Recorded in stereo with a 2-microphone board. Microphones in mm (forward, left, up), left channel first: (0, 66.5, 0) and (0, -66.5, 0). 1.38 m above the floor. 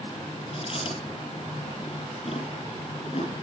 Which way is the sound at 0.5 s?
50° left (ahead or behind).